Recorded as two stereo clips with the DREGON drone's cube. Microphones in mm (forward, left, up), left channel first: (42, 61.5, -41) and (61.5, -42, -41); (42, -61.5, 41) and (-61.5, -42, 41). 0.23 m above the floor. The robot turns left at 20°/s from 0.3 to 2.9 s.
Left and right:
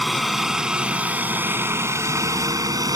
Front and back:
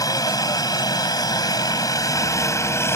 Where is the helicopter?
10° left; by 3.0 s 60° right.